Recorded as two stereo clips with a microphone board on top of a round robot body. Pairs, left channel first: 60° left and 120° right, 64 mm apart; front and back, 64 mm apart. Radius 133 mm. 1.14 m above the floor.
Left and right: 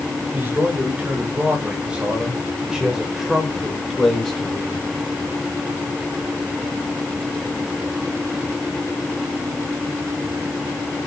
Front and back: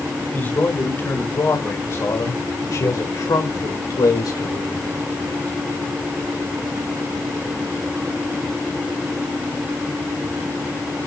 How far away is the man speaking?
About 4.5 m.